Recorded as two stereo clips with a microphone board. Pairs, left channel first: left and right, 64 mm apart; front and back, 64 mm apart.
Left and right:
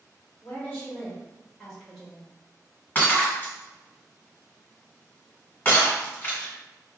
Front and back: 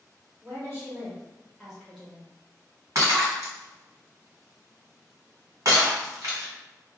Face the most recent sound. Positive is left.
turn(degrees=150)